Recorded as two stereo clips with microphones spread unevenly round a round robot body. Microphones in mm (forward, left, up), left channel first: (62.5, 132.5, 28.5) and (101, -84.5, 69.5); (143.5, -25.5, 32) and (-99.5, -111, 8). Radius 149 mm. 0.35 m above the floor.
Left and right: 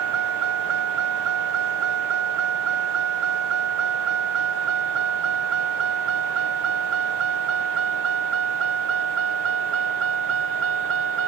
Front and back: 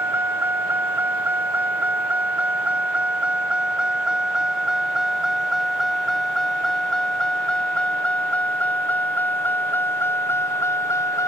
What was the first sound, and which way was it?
A vehicle, 80° right.